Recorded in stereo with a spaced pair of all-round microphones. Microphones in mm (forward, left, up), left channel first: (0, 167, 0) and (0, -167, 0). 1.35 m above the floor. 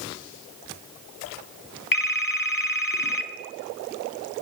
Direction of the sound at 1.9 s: 75° left (ahead or behind).